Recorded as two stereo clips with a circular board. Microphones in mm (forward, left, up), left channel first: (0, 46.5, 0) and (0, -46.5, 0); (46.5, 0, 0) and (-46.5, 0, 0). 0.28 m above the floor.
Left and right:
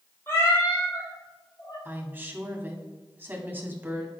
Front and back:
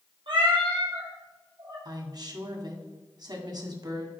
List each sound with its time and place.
0.3 s a cat meowing: 155° left, 3.5 m; by 1.8 s 135° left, 3 m
1.9 s a woman speaking: 150° right, 1.7 m